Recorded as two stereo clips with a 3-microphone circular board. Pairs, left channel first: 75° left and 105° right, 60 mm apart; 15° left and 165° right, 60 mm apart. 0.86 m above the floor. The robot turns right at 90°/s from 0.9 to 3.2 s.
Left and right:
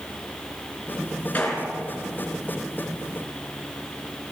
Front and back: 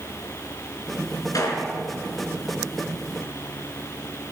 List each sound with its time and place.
1.3 s a gunshot: 10° left, 3.5 m; by 1.7 s 40° left, 3.5 m